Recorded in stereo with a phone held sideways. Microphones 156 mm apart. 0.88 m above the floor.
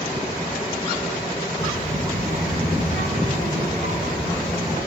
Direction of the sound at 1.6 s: 65° right (ahead or behind).